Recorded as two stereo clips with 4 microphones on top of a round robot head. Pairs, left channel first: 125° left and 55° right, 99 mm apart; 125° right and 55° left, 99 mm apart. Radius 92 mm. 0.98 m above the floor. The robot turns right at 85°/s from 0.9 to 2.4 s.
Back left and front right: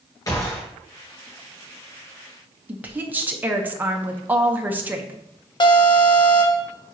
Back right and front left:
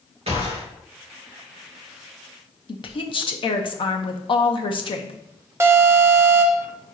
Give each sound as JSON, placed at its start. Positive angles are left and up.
{"t": 0.3, "sound": "a gunshot", "azimuth_deg": 70, "distance_m": 2.5}
{"t": 2.7, "sound": "a woman speaking", "azimuth_deg": -125, "distance_m": 1.0}
{"t": 5.6, "sound": "an alarm", "azimuth_deg": 110, "distance_m": 1.2}